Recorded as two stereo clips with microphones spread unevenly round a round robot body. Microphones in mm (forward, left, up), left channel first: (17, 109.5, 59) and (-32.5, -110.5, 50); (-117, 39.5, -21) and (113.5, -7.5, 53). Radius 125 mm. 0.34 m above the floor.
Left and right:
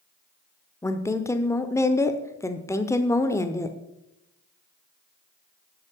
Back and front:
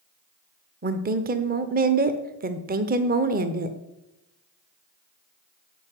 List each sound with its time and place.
0.8 s a woman speaking: 20° left, 0.9 m